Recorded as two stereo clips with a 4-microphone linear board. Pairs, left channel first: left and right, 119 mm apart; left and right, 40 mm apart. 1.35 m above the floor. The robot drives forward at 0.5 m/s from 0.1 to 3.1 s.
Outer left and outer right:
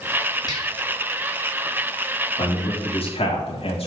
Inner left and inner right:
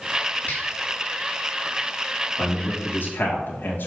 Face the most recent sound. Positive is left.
turn(degrees=55)  # may be behind; listen again after turning